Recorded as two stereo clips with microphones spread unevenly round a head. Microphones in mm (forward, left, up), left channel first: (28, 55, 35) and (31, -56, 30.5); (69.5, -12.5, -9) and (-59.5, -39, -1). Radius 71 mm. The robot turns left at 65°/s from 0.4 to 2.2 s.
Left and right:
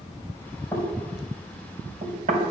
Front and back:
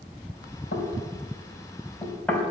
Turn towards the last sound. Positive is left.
turn(degrees=-70)